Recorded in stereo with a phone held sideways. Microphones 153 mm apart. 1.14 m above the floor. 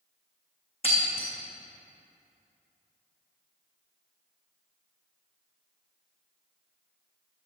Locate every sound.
0.8 s breaking glass: 40° left (ahead or behind), 3 m